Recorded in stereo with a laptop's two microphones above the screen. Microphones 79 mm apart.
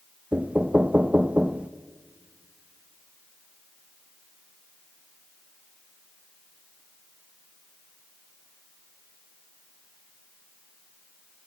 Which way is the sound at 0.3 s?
15° right (ahead or behind).